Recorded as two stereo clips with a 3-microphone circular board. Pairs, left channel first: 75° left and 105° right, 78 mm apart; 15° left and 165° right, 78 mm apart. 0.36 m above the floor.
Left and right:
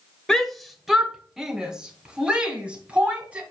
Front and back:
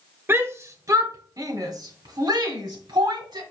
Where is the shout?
155° left, 1.0 m; by 3.4 s 175° right, 2.5 m.